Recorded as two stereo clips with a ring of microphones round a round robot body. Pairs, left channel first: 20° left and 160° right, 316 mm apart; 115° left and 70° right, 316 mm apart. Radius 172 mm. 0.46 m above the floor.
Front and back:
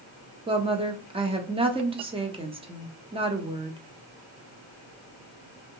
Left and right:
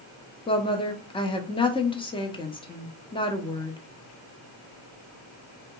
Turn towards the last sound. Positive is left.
turn(degrees=160)